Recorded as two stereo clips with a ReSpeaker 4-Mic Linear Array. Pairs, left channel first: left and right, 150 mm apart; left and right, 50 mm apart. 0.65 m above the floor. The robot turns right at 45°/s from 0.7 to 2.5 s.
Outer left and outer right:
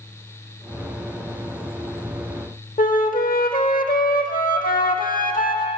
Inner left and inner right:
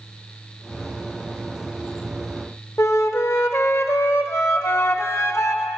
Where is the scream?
No scream in this recording.